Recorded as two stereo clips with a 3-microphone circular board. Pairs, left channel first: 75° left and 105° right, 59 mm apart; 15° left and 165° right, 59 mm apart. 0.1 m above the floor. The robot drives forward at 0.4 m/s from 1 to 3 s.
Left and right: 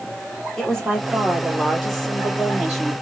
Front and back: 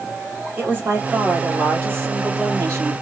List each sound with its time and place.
0.6 s a woman speaking: 155° left, 1.8 m; by 2.9 s 165° left, 2.5 m